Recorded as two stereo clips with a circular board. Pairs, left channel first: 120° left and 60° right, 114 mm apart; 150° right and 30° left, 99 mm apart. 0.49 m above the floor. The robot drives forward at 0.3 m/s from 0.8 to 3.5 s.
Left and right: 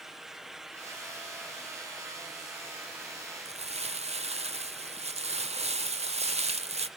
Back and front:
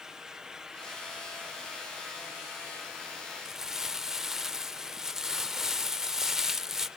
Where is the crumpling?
55° right, 0.6 m.